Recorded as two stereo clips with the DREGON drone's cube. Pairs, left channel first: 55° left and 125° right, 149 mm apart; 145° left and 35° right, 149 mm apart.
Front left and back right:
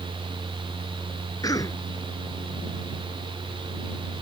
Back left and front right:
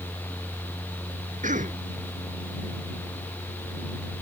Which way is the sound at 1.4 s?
10° right.